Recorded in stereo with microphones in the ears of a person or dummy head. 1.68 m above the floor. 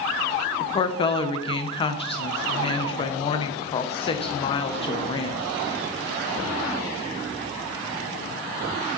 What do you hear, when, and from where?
0.6 s a woman speaking: 30° left (ahead or behind), 0.7 m